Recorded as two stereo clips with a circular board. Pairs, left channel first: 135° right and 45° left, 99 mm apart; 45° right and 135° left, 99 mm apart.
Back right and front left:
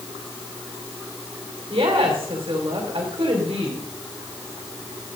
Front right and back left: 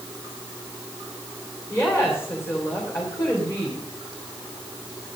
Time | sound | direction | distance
1.7 | a woman speaking | 15° left | 3 m